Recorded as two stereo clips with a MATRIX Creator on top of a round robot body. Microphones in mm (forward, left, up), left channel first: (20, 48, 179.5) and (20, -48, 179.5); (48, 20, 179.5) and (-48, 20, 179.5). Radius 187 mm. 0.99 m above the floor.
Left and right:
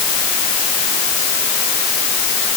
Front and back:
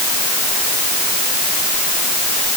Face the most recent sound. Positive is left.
No sound to turn to.